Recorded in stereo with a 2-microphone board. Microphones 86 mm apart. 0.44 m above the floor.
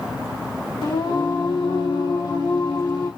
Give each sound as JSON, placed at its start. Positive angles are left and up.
{"t": 0.8, "sound": "singing", "side_deg": 70, "distance_m": 2.0}